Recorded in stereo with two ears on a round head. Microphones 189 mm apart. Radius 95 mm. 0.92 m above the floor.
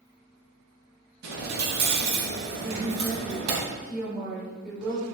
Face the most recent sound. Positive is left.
turn(degrees=-5)  # may be behind; listen again after turning